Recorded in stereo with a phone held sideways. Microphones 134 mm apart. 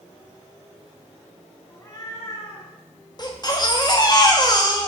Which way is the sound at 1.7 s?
25° left (ahead or behind).